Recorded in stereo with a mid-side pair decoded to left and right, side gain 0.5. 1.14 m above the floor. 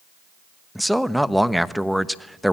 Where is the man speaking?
Straight ahead, 1.1 m.